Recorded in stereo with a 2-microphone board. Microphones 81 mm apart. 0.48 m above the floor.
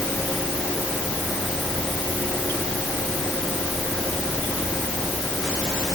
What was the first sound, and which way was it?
Only background noise.